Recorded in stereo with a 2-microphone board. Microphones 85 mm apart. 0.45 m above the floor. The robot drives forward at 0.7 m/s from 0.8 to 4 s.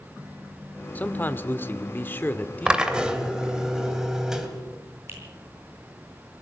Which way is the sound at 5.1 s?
30° right (ahead or behind).